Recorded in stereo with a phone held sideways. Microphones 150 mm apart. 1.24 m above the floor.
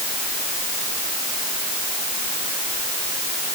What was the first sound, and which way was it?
Only background noise.